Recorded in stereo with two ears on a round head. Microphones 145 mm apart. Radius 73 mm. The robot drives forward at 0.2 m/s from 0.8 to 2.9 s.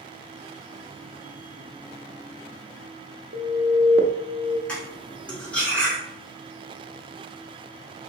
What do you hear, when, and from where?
3.3 s an alarm: 65° right (ahead or behind), 0.6 m
4.7 s cutlery clinking: 10° left (ahead or behind), 1.1 m